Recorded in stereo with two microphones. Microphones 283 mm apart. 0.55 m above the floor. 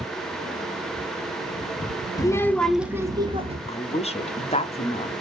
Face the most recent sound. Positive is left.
turn(degrees=25)  # may be behind; listen again after turning